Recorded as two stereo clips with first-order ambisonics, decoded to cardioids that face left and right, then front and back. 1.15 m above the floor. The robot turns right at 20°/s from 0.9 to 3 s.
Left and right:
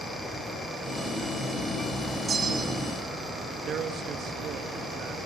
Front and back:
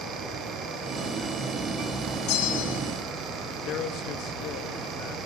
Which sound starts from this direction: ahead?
A bell, at 2.3 s.